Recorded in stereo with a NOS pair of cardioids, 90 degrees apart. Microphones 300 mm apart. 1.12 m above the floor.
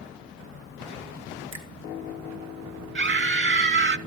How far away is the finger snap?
About 2.5 m.